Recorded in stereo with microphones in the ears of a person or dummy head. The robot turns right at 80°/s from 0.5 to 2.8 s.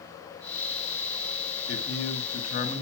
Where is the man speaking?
60° left, 2 m; by 2.8 s 150° left, 2 m.